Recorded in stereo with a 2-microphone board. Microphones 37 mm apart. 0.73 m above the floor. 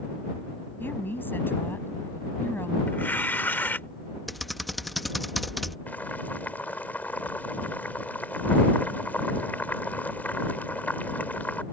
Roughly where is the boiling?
Left.